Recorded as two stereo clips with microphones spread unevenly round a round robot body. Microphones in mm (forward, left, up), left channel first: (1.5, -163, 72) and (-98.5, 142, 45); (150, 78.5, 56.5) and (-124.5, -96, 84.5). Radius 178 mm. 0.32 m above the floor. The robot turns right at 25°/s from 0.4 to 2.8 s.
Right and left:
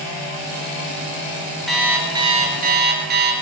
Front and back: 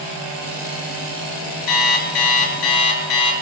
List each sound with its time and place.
1.7 s an alarm clock: 20° left, 4 m; by 3.3 s 45° left, 4 m